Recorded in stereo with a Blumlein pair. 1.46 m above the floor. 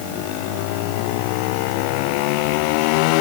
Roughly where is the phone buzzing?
No phone buzzing in this recording.